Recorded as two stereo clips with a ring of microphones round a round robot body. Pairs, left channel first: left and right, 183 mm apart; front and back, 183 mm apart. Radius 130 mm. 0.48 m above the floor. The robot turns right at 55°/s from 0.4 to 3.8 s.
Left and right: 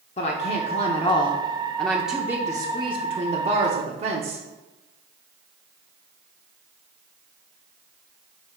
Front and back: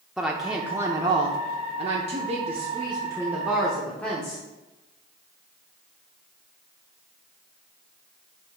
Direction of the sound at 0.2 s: 95° left.